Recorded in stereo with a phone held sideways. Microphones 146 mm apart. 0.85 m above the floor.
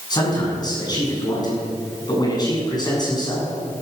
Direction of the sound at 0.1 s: 30° left (ahead or behind).